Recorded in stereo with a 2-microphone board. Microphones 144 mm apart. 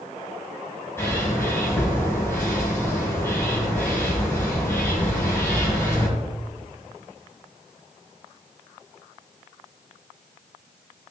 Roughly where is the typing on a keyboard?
I don't hear typing on a keyboard.